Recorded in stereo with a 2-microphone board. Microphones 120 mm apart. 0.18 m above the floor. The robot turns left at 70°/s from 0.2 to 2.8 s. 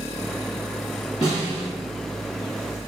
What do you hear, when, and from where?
1.2 s a snare drum: 35° left, 1.8 m; by 1.7 s straight ahead, 1.8 m